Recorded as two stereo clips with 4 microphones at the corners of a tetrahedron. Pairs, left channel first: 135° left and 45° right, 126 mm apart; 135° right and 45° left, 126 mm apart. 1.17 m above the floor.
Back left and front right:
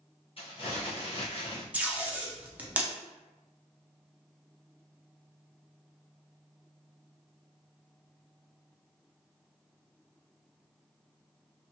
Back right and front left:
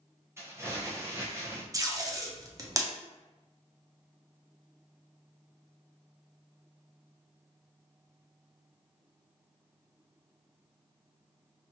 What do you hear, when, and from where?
0.4 s crumpling: 110° left, 0.7 m
1.7 s tape being pulled: 20° left, 0.5 m